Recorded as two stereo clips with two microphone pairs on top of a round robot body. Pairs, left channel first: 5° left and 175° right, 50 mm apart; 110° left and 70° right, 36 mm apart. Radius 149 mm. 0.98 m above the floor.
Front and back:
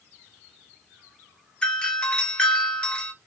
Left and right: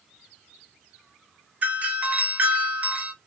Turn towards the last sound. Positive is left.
turn(degrees=-45)